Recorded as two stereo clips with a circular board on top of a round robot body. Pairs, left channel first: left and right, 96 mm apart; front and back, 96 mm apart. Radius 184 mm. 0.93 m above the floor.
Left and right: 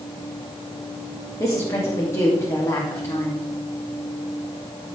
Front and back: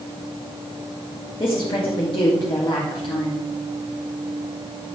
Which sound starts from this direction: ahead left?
A woman speaking, at 1.4 s.